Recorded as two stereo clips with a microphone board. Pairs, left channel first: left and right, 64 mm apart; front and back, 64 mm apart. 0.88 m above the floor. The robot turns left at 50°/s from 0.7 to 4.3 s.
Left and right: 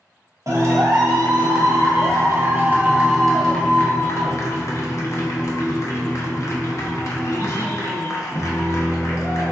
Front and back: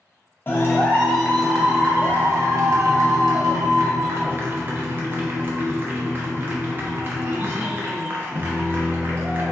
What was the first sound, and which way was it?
A clap, 55° right.